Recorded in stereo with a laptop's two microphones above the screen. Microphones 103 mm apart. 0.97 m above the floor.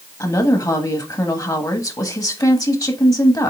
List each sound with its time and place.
0.2 s a woman speaking: 35° left (ahead or behind), 1.3 m